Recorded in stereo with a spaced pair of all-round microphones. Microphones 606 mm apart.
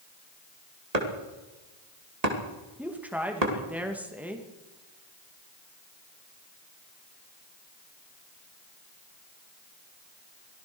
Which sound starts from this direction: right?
Chopping, at 0.9 s.